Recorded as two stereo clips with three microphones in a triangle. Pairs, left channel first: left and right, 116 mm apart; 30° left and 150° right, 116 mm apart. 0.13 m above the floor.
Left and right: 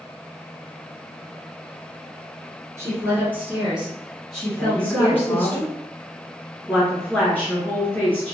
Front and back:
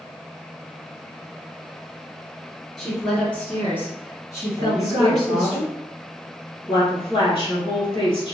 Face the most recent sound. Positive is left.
turn(degrees=20)